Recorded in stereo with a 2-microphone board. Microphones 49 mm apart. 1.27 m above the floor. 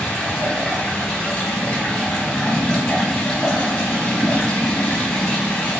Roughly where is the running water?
Centre.